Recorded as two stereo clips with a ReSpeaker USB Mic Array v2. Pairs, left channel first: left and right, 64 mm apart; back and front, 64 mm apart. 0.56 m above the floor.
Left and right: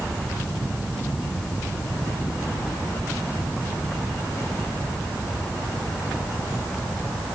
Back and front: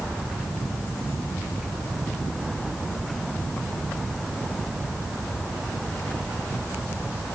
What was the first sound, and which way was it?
Only background noise.